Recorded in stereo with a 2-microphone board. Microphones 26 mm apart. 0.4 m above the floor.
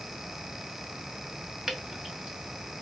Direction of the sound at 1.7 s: 35° right (ahead or behind).